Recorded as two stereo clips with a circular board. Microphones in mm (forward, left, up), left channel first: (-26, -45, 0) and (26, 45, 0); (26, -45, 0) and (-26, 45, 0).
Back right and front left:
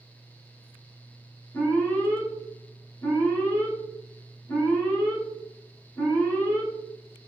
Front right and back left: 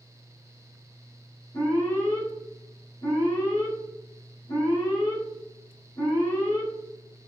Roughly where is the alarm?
Ahead right.